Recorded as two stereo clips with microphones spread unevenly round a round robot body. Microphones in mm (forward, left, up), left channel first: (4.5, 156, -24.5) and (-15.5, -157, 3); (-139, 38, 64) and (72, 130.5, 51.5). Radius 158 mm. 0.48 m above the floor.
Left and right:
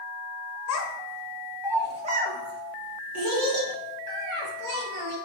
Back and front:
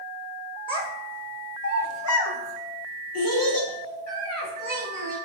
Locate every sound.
0.7 s a child speaking: 130° left, 0.8 m; by 5.2 s 120° right, 2 m